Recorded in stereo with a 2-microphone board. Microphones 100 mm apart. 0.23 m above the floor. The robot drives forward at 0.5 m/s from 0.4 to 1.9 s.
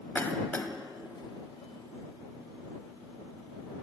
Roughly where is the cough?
Left.